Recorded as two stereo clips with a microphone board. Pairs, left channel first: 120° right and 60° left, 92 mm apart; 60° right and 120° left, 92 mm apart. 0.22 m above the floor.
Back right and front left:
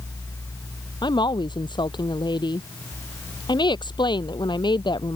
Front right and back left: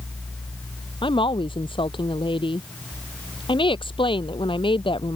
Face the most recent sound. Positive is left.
turn(degrees=-85)